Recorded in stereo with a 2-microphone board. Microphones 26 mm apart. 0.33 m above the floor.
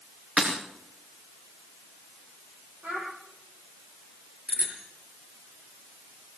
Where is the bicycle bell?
55° right (ahead or behind), 5 m.